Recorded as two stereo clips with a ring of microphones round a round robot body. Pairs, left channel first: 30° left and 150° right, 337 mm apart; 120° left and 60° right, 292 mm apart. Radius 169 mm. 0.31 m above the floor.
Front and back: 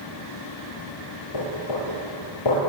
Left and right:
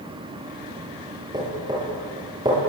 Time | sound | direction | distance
1.3 | knocking | 15° left | 7 m